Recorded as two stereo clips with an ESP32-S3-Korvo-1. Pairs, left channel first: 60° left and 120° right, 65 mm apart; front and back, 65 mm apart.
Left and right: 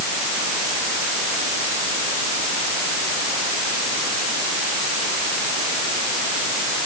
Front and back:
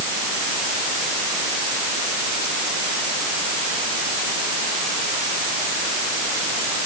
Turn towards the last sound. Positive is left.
No sound to turn to.